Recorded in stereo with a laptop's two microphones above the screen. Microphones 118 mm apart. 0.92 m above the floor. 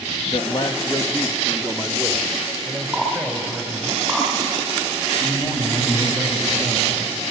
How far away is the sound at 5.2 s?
About 4.5 m.